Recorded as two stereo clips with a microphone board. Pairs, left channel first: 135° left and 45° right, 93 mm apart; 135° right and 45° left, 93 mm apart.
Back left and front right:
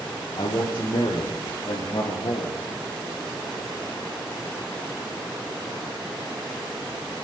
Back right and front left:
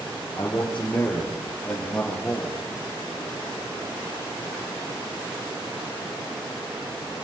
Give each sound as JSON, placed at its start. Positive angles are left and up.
{"t": 0.3, "sound": "a man speaking", "azimuth_deg": 155, "distance_m": 5.0}